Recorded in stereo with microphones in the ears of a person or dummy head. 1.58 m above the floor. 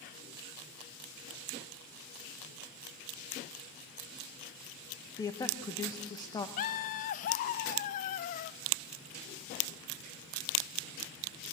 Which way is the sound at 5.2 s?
20° left (ahead or behind).